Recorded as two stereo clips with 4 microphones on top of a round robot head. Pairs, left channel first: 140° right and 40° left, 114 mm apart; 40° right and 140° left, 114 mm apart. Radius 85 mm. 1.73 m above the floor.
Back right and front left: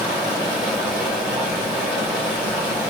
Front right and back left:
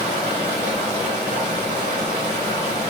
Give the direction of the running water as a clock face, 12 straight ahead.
8 o'clock.